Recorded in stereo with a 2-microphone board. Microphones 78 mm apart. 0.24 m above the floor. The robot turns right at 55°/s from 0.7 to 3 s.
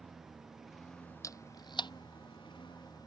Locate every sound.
0.0 s a lawn mower: straight ahead; by 3.1 s 125° left
1.2 s a camera shutter: 45° left (ahead or behind); by 1.9 s 80° left